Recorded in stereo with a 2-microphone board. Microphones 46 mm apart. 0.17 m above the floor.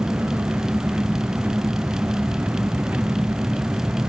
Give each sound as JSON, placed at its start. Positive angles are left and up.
{"t": 0.0, "sound": "an engine running", "side_deg": -40}